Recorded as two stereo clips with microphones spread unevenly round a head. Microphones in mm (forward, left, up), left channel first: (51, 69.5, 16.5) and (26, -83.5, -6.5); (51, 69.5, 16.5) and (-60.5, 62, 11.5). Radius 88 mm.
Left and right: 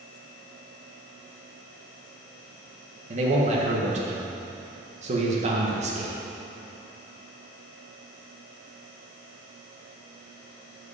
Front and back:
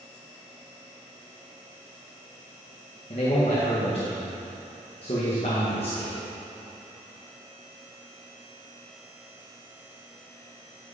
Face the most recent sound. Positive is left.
turn(degrees=-55)